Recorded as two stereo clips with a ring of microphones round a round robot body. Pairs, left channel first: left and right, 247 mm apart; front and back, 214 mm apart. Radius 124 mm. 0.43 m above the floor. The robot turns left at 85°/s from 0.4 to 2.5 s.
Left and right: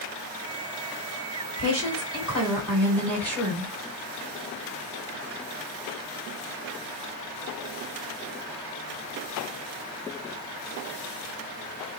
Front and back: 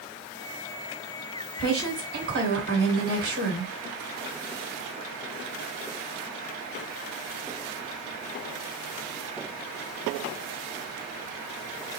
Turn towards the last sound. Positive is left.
turn(degrees=175)